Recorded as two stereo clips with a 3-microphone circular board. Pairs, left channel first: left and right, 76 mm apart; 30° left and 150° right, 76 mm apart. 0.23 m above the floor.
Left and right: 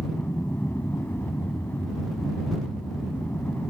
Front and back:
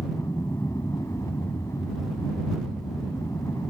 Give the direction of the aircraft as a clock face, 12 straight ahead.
11 o'clock.